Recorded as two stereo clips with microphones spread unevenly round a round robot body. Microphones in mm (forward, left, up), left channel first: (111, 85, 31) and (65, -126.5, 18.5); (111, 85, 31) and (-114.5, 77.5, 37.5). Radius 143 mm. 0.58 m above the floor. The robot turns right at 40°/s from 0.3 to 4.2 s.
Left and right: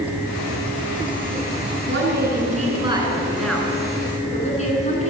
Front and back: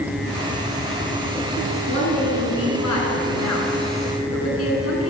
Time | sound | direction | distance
1.9 | a woman speaking | 75° right | 7.5 m